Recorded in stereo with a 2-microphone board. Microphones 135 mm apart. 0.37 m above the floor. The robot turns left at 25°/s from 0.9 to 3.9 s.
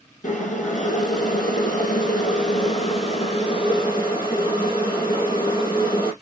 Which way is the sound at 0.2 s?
110° left.